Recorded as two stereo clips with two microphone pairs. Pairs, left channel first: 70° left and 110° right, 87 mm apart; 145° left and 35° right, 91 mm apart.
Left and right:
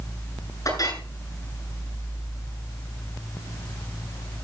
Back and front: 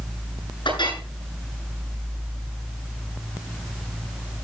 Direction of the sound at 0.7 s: 115° left.